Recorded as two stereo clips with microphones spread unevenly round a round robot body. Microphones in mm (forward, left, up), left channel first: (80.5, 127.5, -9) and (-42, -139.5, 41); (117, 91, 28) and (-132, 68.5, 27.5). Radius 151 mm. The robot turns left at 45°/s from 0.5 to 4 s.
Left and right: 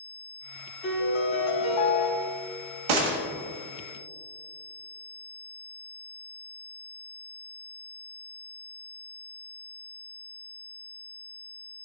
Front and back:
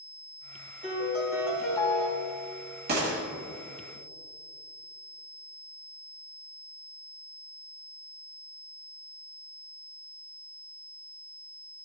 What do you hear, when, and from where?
0.8 s a piano: 130° left, 3 m; by 2.1 s 75° left, 3 m
2.9 s a gunshot: 110° right, 1.2 m; by 3.2 s 125° right, 1.2 m